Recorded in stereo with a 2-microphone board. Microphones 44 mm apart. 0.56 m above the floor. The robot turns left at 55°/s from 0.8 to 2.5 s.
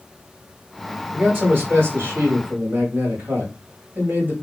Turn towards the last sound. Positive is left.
turn(degrees=-115)